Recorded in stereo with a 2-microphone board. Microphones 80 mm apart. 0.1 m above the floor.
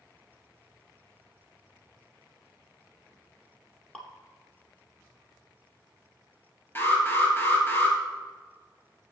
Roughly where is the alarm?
Left.